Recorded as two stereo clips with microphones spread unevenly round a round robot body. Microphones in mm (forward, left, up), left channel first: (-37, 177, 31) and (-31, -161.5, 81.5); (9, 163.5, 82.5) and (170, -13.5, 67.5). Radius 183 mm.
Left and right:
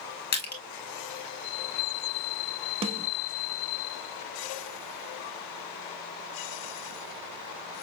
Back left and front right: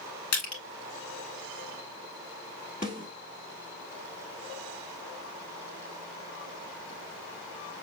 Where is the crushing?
155° left, 1.8 m.